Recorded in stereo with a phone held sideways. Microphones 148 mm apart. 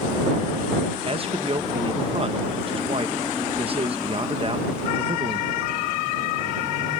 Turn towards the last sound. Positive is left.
turn(degrees=-40)  # may be behind; listen again after turning